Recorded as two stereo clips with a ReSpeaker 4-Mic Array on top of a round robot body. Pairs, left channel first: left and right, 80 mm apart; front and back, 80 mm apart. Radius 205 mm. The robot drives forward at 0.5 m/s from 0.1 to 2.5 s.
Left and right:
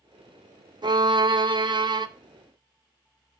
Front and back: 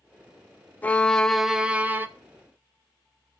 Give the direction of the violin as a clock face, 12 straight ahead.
2 o'clock.